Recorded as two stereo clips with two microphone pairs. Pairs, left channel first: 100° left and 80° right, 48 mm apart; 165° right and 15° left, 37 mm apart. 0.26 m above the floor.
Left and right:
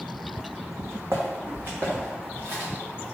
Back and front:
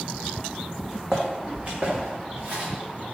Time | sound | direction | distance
0.8 | footsteps | 70° right | 0.8 m